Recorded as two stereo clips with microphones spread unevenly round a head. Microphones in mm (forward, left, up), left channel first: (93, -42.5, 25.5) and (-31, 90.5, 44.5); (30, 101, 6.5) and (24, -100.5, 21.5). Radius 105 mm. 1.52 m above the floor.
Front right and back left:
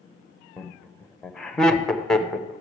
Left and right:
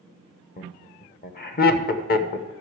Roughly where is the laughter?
Ahead left.